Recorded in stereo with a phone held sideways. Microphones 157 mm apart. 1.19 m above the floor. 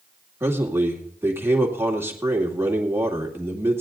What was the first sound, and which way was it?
A man speaking, 15° right (ahead or behind).